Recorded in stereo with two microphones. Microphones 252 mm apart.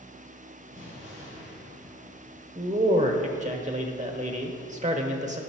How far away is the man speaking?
About 0.9 m.